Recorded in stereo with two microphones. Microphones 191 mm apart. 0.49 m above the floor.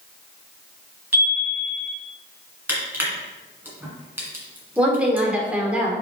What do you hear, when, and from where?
1.1 s a chime: 10° right (ahead or behind), 1.9 m
2.7 s crushing: 10° right (ahead or behind), 2.5 m
4.8 s a woman speaking: 5° right (ahead or behind), 1.6 m